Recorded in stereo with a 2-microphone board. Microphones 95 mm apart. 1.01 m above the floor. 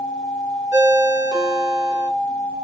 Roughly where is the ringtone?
Right.